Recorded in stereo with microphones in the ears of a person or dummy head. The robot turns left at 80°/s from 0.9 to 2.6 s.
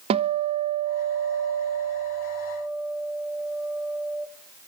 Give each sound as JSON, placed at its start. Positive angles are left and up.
{"t": 0.1, "sound": "a guitar", "azimuth_deg": -35, "distance_m": 0.7}